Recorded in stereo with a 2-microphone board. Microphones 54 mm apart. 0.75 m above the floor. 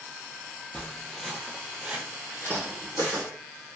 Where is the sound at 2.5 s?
45° right (ahead or behind), 1.0 m.